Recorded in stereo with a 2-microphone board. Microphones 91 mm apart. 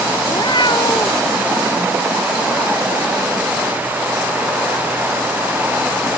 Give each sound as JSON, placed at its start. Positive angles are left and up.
{"t": 0.3, "sound": "a cat meowing", "side_deg": 55}